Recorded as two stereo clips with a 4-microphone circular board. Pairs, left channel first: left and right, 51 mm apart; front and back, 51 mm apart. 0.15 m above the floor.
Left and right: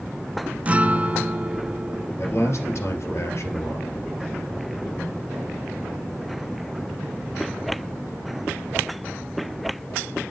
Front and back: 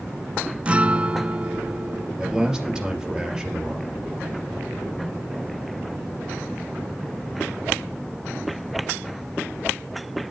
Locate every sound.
0.7 s a guitar: 130° right, 0.6 m
2.2 s a man speaking: 105° left, 3.5 m